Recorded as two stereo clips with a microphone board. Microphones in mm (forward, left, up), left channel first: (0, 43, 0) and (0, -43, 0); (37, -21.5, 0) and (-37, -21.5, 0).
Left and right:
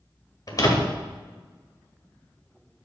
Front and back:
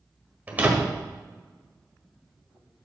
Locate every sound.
0.5 s a door slam: 120° left, 1.5 m